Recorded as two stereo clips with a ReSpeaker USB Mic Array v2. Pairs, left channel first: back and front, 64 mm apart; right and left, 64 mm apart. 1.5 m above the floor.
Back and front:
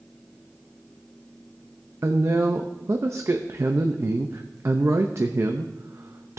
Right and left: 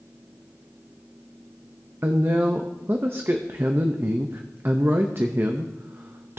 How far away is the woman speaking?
About 0.6 m.